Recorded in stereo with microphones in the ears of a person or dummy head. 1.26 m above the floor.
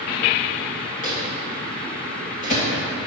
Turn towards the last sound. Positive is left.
turn(degrees=45)  # may be behind; listen again after turning